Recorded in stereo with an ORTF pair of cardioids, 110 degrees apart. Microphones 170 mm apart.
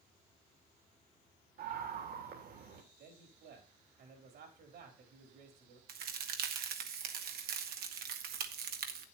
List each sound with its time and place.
1.6 s a scream: 65° right, 3.5 m
3.0 s a man speaking: 70° right, 4.5 m
5.9 s a crack: 70° right, 1.7 m